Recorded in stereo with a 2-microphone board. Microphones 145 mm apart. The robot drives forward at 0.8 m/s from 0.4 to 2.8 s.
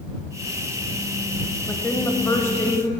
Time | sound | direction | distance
1.7 | a woman speaking | 15° left (ahead or behind) | 1.0 m